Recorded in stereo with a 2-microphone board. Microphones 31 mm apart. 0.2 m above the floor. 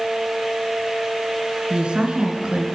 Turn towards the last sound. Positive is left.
turn(degrees=-35)  # may be behind; listen again after turning